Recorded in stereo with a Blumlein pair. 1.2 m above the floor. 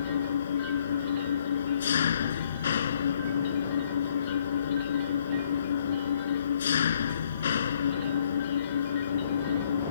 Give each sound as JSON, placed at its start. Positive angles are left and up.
{"t": 0.0, "sound": "an engine running", "azimuth_deg": 65}